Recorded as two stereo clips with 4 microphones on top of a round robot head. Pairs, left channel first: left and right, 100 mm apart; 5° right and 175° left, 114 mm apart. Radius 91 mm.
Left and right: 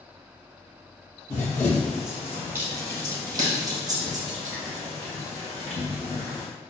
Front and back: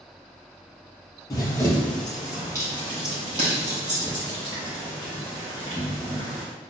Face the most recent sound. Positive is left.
turn(degrees=-140)